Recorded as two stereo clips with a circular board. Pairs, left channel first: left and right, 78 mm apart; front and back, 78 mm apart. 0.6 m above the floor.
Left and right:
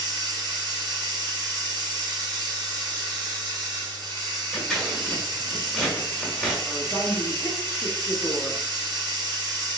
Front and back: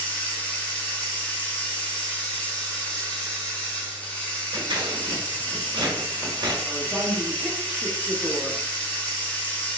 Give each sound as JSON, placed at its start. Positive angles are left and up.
{"t": 0.0, "sound": "running water", "azimuth_deg": -75, "distance_m": 1.7}
{"t": 4.5, "sound": "scissors", "azimuth_deg": 180, "distance_m": 1.3}
{"t": 6.7, "sound": "a woman speaking", "azimuth_deg": 95, "distance_m": 1.3}